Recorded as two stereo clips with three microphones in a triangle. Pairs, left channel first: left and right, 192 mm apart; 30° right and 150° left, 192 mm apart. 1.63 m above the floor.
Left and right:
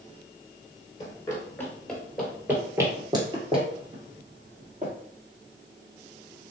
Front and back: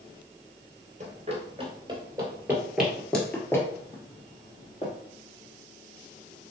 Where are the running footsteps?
145° left, 1.9 m; by 4.9 s 75° right, 2.5 m.